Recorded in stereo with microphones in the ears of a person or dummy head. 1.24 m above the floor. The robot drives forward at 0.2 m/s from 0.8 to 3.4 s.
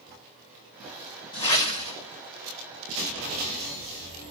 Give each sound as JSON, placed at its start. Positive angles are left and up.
{"t": 1.3, "sound": "a whoosh", "side_deg": 25, "distance_m": 2.0}